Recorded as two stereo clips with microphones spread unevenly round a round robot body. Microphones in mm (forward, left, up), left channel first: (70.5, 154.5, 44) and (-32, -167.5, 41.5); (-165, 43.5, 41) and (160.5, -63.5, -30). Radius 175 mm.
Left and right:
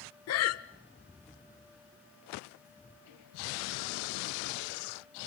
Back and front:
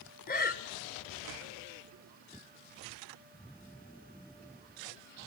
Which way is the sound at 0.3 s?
95° left.